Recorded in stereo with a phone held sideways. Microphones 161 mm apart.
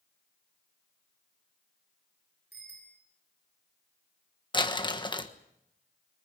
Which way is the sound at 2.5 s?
80° right.